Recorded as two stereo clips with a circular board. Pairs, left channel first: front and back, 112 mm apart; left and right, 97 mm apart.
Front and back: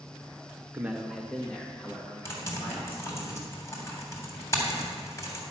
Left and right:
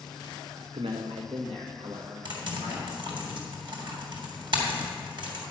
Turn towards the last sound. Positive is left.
turn(degrees=-65)